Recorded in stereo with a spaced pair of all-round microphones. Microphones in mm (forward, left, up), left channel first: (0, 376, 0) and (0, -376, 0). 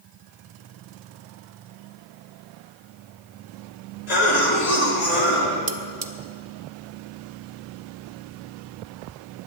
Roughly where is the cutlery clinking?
Right.